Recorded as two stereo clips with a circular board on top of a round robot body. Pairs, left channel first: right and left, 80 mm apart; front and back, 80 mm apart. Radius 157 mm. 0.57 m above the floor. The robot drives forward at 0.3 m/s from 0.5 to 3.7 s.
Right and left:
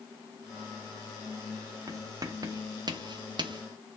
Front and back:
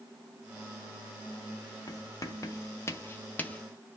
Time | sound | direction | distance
1.9 | writing | 40° left | 0.9 m